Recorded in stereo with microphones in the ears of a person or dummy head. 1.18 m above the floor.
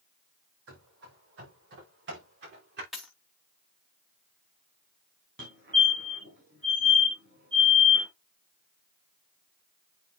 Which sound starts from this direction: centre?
A dropped coin, at 2.9 s.